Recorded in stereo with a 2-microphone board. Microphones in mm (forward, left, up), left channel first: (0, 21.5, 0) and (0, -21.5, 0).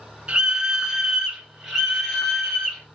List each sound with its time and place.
0.3 s a scream: 25° right (ahead or behind), 1.8 m; by 2.9 s 10° left (ahead or behind), 3 m